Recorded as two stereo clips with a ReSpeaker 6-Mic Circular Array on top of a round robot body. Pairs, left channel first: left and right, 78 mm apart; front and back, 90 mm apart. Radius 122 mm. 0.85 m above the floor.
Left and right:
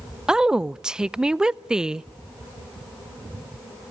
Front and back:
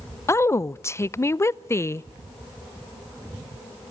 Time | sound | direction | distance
0.3 | a woman speaking | 20° right | 0.6 m